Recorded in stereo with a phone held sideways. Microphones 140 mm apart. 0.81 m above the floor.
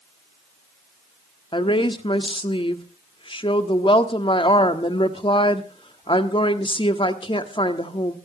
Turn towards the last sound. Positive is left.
turn(degrees=40)  # may be behind; listen again after turning